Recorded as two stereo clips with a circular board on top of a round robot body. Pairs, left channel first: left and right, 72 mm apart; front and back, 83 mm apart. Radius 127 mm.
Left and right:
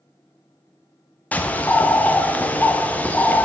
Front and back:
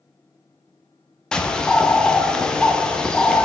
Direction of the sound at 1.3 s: 65° left.